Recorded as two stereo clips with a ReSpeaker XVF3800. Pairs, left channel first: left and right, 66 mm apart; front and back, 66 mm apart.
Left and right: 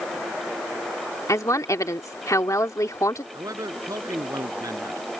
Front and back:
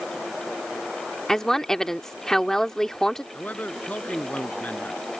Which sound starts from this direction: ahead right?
A man speaking, at 3.3 s.